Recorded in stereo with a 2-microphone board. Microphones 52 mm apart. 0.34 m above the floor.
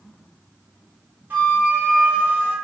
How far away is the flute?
About 1.1 m.